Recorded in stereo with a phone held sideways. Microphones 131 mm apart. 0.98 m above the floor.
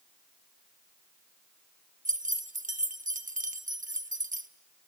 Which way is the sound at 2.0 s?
85° right.